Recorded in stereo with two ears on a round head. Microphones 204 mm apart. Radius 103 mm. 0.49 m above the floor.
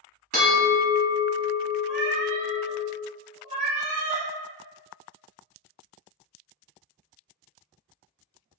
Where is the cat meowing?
30° right (ahead or behind), 0.6 m.